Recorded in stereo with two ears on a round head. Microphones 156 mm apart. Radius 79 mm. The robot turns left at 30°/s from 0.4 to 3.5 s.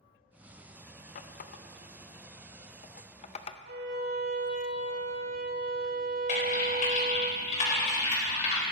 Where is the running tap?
50° left (ahead or behind), 0.5 m; by 3.6 s 30° left (ahead or behind), 0.5 m.